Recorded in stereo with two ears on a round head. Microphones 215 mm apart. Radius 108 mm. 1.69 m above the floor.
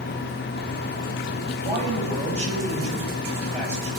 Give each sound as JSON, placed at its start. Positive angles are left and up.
{"t": 1.6, "sound": "a man speaking", "side_deg": -25, "distance_m": 8.5}